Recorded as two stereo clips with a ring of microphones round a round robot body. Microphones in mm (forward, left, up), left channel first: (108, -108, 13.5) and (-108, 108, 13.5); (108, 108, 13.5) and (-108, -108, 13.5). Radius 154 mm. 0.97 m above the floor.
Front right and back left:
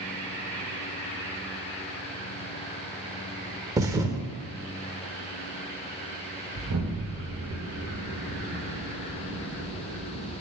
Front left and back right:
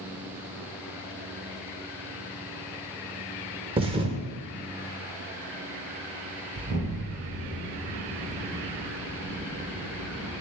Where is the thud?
165° right, 0.6 m.